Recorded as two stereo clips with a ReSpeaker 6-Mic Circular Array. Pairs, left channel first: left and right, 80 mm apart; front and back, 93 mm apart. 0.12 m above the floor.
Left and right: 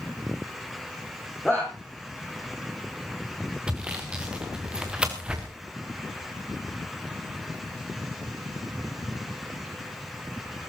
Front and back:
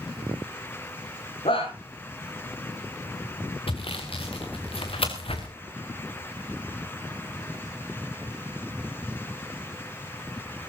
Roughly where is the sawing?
Ahead.